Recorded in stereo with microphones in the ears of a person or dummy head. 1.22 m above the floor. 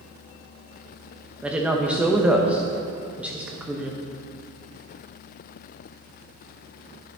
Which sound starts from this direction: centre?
A woman speaking, at 1.4 s.